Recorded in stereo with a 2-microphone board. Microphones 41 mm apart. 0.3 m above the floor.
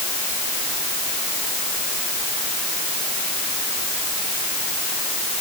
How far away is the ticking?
I don't hear ticking.